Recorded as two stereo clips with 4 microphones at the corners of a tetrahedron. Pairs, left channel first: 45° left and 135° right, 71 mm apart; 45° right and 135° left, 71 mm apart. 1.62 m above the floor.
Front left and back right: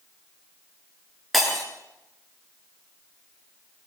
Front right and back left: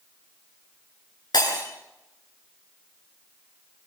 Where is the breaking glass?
40° right, 8.5 m.